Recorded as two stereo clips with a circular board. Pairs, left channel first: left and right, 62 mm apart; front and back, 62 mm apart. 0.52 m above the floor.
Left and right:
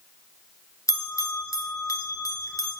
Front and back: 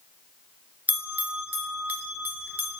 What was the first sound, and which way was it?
A bell, 115° left.